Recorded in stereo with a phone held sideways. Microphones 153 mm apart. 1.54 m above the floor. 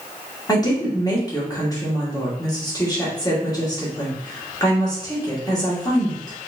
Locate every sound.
0.5 s a woman speaking: 25° left (ahead or behind), 1.7 m